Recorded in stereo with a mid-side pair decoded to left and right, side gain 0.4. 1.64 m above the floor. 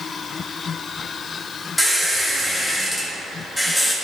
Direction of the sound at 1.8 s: 5° left.